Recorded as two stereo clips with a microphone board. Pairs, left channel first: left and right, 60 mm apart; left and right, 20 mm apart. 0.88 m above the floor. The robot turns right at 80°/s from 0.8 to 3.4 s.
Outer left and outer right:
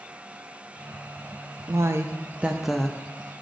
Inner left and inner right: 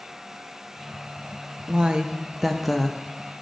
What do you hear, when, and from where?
1.7 s a woman speaking: 85° right, 0.6 m; by 3.0 s 20° left, 0.6 m